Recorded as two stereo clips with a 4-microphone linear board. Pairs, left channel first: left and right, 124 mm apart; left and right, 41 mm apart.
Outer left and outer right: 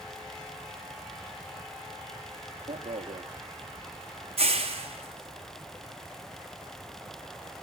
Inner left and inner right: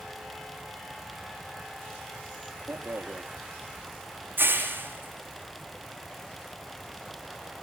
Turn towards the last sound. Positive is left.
turn(degrees=-55)  # may be behind; listen again after turning